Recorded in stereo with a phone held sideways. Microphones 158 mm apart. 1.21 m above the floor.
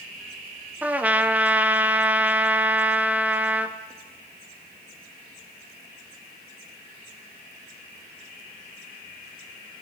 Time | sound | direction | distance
0.8 | a trumpet | 10° right (ahead or behind) | 0.6 m